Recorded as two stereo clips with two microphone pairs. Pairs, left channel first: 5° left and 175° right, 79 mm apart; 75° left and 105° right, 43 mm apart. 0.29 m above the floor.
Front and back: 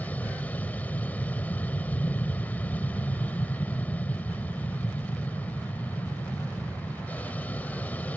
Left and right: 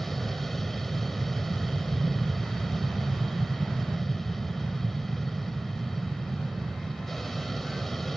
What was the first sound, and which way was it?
An aircraft, straight ahead.